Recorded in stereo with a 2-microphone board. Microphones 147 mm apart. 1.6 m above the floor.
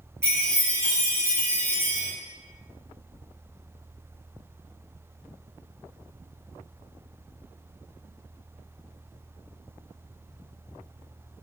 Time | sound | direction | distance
0.2 | a chime | 15° right (ahead or behind) | 1.2 m